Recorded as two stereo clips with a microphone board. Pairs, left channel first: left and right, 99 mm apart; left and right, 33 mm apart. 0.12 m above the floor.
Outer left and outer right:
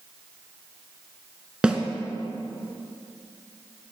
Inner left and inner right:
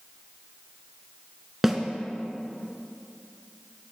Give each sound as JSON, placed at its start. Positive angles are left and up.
{"t": 1.6, "sound": "a snare drum", "side_deg": -10, "distance_m": 0.8}